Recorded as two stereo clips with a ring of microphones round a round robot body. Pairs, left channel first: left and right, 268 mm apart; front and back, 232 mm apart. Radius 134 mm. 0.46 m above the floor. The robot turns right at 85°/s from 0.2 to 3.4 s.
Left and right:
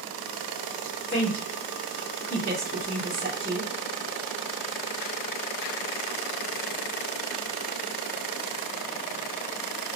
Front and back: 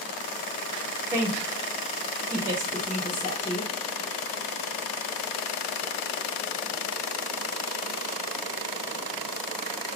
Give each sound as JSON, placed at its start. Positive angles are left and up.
{"t": 1.1, "sound": "a woman speaking", "azimuth_deg": 120, "distance_m": 0.8}